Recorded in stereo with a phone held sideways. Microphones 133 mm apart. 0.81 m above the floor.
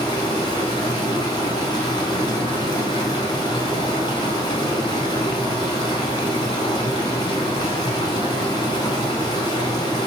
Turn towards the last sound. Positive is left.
turn(degrees=30)  # may be behind; listen again after turning